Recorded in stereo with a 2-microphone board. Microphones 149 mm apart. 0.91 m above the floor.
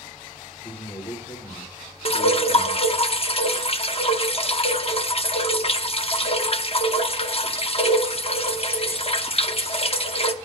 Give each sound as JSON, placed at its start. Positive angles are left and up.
{"t": 0.6, "sound": "a man speaking", "side_deg": 40, "distance_m": 1.5}
{"t": 2.0, "sound": "dripping", "side_deg": 40, "distance_m": 0.6}